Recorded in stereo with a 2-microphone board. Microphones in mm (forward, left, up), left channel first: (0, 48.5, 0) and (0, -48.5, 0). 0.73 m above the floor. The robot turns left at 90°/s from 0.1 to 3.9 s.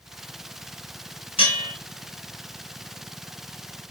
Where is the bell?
90° left, 1.7 m; by 1.7 s 60° left, 1.7 m.